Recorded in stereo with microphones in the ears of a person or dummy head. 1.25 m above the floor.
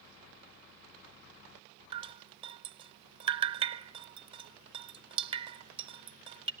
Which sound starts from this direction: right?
Dripping, at 1.9 s.